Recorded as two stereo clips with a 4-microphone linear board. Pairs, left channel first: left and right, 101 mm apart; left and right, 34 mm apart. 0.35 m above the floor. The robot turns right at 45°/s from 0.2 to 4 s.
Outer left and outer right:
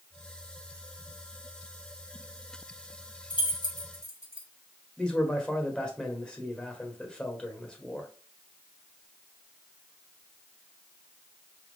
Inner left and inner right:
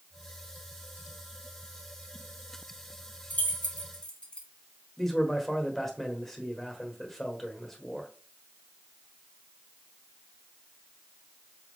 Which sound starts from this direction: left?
Keys jangling, at 3.3 s.